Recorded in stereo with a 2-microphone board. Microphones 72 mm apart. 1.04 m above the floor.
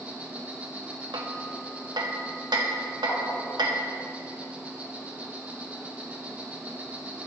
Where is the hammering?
80° right, 0.7 m.